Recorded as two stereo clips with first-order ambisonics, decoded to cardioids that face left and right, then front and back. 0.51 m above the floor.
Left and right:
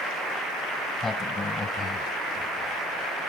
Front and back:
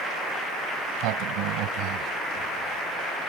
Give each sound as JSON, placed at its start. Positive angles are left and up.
{"t": 0.8, "sound": "a sliding door", "azimuth_deg": 165}